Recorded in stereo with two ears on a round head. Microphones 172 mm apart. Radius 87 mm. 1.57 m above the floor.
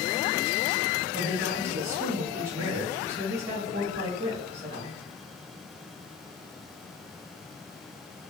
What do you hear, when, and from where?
1.1 s a woman speaking: 15° right (ahead or behind), 1.6 m